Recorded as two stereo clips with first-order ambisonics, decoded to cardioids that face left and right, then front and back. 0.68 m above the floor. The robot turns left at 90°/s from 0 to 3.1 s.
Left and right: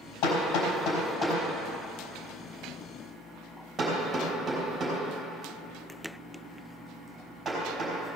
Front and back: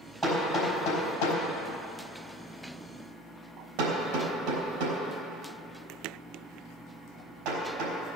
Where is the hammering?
90° left, 3.5 m; by 8.0 s 170° right, 3.5 m.